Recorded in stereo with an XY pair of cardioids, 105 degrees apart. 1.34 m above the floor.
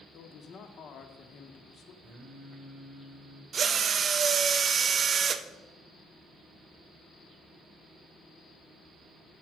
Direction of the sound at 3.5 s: 50° right.